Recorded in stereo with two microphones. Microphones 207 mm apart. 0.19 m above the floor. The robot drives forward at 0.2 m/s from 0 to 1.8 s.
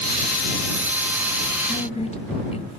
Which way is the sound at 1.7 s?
30° left (ahead or behind).